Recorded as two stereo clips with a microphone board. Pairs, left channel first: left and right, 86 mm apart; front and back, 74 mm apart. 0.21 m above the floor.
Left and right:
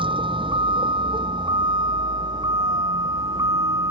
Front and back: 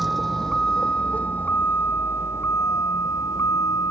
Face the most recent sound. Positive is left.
turn(degrees=-45)